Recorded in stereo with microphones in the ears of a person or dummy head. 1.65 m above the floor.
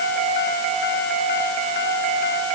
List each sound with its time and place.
Only background noise.